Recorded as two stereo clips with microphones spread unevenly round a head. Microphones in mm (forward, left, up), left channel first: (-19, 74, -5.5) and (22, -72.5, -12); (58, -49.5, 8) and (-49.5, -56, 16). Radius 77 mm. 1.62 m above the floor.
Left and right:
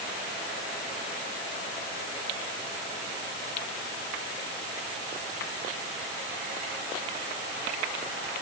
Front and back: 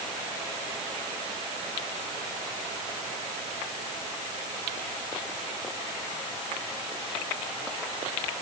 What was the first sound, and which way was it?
Only background noise.